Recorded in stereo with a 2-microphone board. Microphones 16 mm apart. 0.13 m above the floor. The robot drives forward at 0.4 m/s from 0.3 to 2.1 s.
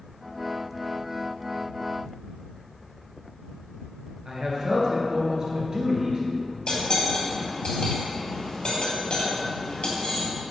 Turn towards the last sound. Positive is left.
turn(degrees=50)  # may be behind; listen again after turning